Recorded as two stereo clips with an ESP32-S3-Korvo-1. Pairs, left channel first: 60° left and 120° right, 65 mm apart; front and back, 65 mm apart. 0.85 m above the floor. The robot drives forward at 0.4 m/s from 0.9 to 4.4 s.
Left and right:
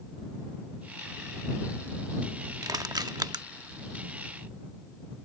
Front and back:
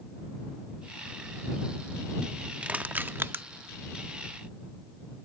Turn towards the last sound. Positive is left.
turn(degrees=-145)